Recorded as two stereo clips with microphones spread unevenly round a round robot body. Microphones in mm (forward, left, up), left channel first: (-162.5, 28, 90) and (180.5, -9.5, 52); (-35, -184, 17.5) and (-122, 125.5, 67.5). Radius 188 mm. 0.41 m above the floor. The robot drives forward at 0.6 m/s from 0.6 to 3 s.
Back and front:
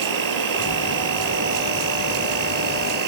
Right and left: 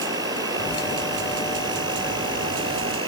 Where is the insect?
25° left; by 3.1 s 30° left.